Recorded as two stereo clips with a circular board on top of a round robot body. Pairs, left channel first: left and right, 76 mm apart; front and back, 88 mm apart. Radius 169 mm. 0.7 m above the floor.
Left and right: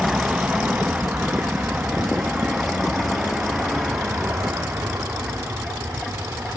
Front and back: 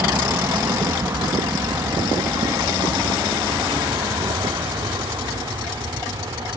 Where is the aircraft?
155° right; by 6.6 s 140° right.